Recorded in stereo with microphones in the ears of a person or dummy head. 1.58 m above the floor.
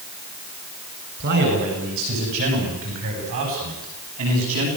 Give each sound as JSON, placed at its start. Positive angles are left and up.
{"t": 1.2, "sound": "a man speaking", "side_deg": -55, "distance_m": 8.5}